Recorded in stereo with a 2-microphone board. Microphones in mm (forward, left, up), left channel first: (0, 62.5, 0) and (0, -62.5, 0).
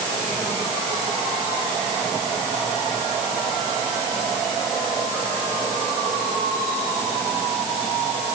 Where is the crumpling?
No crumpling in this recording.